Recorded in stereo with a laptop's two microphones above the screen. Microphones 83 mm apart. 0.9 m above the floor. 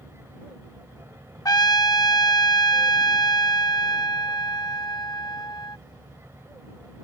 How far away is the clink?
No clink in this recording.